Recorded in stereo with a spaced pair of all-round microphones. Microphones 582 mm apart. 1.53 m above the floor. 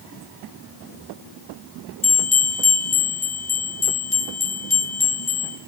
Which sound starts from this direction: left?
A bell, at 2.0 s.